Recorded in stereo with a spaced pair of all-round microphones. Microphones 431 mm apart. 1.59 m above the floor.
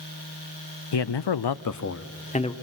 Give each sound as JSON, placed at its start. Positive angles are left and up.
{"t": 0.9, "sound": "a man speaking", "side_deg": 65, "distance_m": 0.6}